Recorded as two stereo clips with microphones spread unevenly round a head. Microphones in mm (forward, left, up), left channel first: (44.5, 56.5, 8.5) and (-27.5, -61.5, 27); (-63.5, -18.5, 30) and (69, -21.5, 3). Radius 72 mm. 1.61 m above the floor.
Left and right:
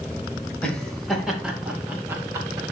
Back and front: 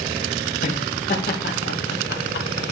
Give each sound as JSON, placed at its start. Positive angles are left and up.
{"t": 0.6, "sound": "laughter", "azimuth_deg": 140, "distance_m": 2.5}